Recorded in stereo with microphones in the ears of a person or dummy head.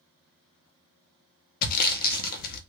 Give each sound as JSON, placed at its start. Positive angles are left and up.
{"t": 1.6, "sound": "sawing", "side_deg": 45, "distance_m": 0.5}